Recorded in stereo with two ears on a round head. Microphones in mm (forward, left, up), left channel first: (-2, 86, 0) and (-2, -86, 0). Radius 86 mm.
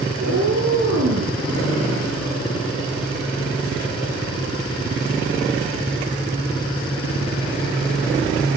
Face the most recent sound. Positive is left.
turn(degrees=-80)